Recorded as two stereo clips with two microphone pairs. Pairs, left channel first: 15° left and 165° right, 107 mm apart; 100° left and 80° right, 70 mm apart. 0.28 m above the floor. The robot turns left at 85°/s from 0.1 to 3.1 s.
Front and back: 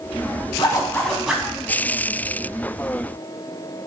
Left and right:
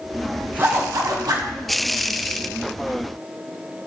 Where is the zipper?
25° right, 0.6 m; by 1.5 s 100° right, 0.6 m.